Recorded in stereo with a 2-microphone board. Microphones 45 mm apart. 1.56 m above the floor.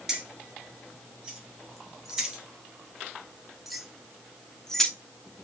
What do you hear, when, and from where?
0.1 s keys jangling: 10° right (ahead or behind), 2 m; by 4.9 s 10° left (ahead or behind), 0.6 m